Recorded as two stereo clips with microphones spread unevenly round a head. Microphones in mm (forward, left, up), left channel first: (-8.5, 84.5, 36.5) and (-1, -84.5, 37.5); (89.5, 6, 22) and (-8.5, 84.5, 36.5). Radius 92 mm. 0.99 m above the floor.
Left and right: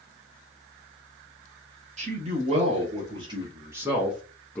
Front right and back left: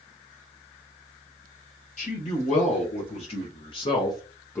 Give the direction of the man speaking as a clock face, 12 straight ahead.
1 o'clock.